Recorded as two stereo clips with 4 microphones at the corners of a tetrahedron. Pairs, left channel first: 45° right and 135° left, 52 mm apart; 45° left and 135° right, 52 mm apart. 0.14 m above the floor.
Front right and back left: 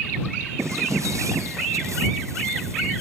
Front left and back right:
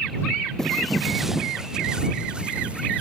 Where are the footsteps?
125° left; by 3.0 s 155° left.